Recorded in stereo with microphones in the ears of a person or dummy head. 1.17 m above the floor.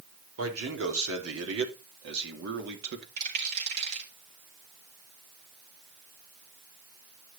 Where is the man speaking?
85° right, 3 m; by 3.1 s 60° right (ahead or behind), 2 m.